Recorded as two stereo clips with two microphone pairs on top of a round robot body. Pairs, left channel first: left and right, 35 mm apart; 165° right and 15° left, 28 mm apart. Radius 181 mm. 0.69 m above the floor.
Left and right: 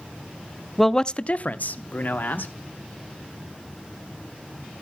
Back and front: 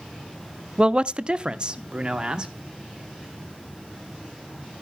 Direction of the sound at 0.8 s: 20° left.